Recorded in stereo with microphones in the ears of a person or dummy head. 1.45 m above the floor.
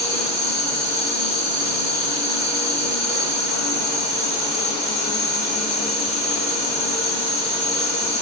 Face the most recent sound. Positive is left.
turn(degrees=-10)  # may be behind; listen again after turning